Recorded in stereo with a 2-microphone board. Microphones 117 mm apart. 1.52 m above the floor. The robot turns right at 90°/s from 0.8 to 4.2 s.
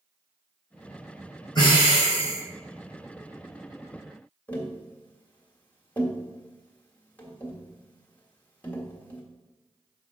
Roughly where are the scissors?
I don't hear scissors.